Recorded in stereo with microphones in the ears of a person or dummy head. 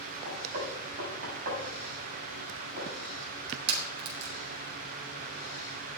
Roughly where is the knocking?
Right.